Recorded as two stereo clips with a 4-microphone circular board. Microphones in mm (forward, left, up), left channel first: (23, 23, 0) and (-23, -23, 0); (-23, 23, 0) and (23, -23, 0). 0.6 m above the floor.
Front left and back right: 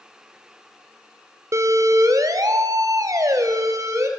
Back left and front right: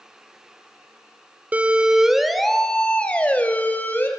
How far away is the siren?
About 2 m.